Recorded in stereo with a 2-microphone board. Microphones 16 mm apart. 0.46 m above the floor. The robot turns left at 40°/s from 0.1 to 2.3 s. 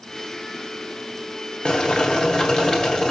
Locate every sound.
1.6 s boiling: 70° left (ahead or behind), 2.5 m; by 3.1 s 55° left (ahead or behind), 2.5 m